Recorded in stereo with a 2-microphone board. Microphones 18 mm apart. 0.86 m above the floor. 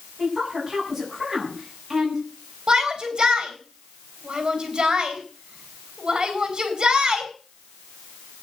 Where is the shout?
40° right (ahead or behind), 6.5 m.